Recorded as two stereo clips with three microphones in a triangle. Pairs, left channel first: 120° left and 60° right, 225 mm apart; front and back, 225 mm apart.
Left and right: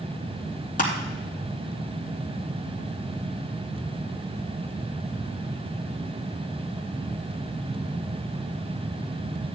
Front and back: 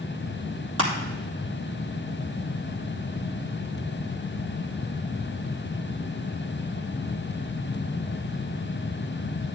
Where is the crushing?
175° left, 3 m.